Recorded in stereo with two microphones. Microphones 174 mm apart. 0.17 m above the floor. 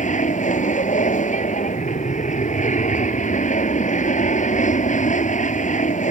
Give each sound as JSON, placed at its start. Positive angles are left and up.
{"t": 0.0, "sound": "an aircraft", "side_deg": 45}